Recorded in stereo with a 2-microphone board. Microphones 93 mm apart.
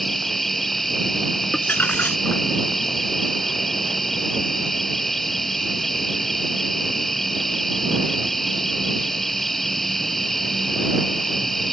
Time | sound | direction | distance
0.0 | an insect | centre (ahead or behind) | ?
1.5 | crumpling | 20° left (ahead or behind) | ?